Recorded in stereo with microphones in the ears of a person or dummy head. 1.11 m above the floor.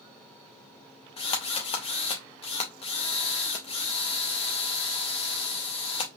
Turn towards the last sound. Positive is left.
turn(degrees=35)  # may be behind; listen again after turning